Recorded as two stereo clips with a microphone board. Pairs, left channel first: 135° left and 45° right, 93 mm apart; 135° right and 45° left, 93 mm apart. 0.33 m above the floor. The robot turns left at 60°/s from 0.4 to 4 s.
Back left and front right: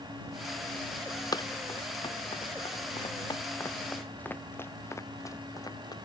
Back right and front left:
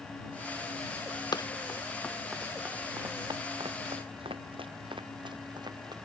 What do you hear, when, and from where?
1.3 s running footsteps: straight behind; by 5.9 s 90° left